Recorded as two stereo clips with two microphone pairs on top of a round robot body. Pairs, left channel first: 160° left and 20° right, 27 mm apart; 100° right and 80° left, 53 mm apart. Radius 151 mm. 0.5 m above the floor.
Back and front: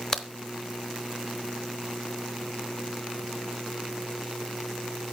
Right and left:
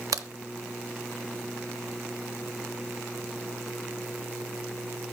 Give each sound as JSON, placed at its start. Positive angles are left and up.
{"t": 0.1, "sound": "a crack", "azimuth_deg": 95, "distance_m": 0.8}